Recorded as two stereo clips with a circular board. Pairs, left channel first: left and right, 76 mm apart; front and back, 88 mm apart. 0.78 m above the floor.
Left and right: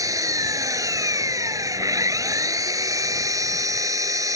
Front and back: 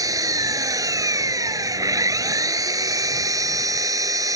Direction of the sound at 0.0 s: 130° right.